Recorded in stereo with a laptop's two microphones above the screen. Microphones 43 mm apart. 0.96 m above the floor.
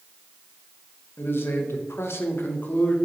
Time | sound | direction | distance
1.2 | a man speaking | 60° left (ahead or behind) | 0.8 m